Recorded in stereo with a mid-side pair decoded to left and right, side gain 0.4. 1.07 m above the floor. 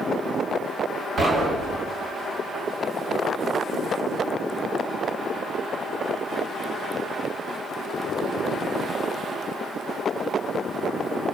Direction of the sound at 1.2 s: 50° right.